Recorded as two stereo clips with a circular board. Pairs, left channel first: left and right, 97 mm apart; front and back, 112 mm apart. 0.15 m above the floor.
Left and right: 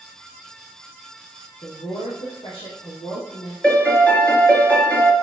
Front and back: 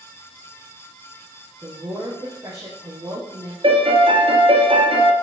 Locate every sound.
1.6 s a woman speaking: 115° left, 3.5 m
3.6 s a piano: 165° left, 2 m